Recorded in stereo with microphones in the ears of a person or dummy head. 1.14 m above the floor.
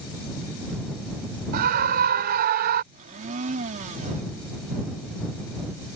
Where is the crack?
I don't hear a crack.